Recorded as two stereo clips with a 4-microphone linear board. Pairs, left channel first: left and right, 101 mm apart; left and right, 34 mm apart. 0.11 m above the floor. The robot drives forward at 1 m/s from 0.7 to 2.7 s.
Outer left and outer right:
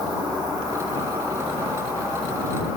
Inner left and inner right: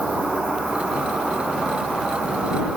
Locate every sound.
0.0 s an insect: 45° right (ahead or behind), 2.5 m; by 2.8 s 25° right (ahead or behind), 4 m